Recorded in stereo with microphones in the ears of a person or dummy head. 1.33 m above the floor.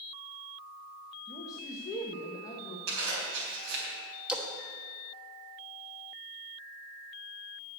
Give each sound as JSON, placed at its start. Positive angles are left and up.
{"t": 1.3, "sound": "a man speaking", "side_deg": 20, "distance_m": 1.1}
{"t": 2.9, "sound": "a zipper", "side_deg": -75, "distance_m": 4.0}
{"t": 4.3, "sound": "a splash", "side_deg": 0, "distance_m": 1.1}